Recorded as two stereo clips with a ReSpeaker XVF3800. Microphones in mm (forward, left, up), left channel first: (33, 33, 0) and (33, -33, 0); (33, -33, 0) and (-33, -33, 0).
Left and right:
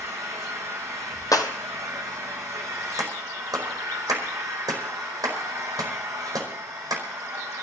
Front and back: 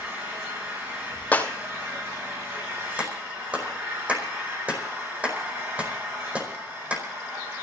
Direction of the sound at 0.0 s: 125° right.